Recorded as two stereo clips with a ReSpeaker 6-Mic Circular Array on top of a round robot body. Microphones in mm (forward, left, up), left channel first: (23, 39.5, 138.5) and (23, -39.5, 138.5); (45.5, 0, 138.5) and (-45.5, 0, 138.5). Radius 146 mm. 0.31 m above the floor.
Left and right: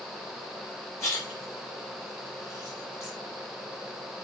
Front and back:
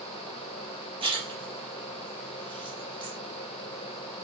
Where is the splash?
150° left, 3.5 m.